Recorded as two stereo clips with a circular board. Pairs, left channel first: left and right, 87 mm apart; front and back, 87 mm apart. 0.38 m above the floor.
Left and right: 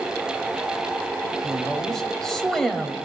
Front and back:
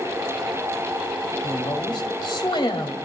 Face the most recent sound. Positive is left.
turn(degrees=5)